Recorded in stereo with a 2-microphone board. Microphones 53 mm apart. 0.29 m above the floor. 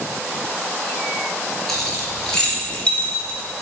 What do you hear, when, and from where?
1.7 s keys jangling: 5° left (ahead or behind), 3.5 m; by 3.4 s 30° left (ahead or behind), 3 m